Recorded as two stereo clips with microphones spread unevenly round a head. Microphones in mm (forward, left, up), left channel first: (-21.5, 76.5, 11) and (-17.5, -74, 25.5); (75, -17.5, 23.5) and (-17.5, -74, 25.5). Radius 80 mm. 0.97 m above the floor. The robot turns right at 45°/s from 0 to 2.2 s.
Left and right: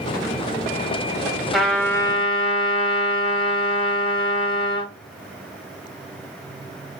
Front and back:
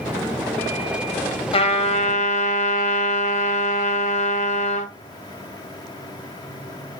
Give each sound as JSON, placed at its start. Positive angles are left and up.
{"t": 1.5, "sound": "a trumpet", "azimuth_deg": 0, "distance_m": 1.7}